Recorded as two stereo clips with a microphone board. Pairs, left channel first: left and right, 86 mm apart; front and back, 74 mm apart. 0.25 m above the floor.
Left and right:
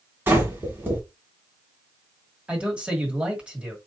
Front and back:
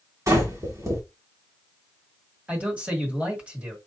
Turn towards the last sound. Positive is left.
turn(degrees=-145)